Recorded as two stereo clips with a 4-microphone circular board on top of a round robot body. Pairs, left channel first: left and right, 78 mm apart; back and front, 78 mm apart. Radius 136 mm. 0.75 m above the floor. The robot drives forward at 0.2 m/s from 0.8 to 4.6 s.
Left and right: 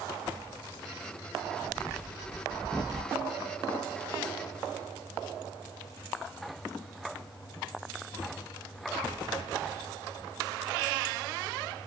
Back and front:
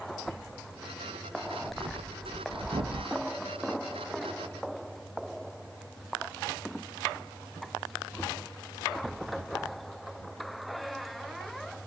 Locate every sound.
1.4 s breathing: 5° right, 1.1 m